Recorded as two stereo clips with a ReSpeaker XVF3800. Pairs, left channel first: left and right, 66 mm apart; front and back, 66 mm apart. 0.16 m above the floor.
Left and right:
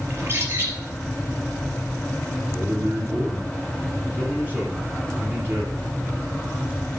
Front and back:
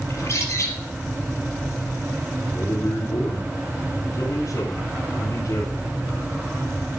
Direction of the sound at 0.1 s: 40° right.